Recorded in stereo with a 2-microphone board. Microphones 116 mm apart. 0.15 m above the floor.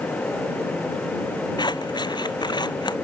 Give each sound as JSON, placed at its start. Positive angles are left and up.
{"t": 1.6, "sound": "scissors", "side_deg": 40}